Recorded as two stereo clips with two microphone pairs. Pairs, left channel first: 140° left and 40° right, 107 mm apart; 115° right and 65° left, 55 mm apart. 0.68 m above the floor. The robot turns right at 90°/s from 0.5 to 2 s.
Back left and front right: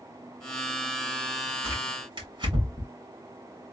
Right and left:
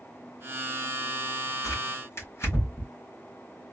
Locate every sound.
1.6 s tearing paper: 110° right, 2.5 m; by 2.9 s 80° right, 2.5 m